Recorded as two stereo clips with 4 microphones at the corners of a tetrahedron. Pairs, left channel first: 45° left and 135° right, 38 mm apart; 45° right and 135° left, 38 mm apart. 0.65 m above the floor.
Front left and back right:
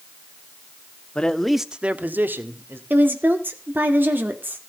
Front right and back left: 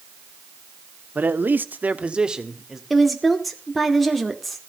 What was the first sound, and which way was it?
A man speaking, 105° left.